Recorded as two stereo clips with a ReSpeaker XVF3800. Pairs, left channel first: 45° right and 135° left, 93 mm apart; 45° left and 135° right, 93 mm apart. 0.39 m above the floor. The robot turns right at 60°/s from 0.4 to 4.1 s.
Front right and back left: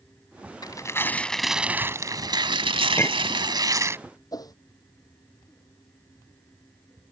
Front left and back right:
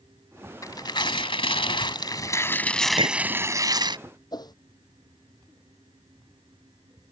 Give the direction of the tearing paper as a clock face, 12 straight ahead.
12 o'clock.